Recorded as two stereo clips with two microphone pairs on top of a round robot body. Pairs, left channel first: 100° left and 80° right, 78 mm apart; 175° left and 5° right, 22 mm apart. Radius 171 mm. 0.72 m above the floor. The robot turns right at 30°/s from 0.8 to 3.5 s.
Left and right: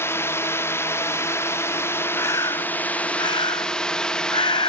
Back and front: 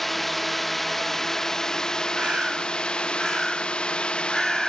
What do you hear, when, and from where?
0.0 s a drone: 85° left; by 4.7 s 165° left
2.2 s a bird: 45° left; by 4.7 s 85° left